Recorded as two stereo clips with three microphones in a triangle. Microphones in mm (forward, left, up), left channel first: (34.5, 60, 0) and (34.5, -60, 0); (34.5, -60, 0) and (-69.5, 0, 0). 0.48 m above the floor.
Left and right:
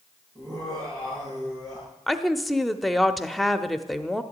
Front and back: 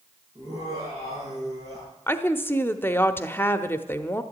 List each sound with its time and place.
0.3 s laughter: 150° right, 10 m
2.1 s a woman speaking: straight ahead, 0.8 m